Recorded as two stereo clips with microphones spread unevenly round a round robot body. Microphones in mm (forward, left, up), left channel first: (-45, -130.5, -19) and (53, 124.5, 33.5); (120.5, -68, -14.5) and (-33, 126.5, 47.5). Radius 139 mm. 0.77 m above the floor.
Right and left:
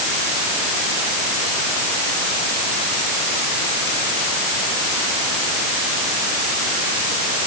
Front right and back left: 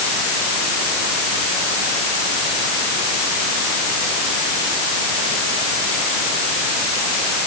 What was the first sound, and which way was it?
Only background noise.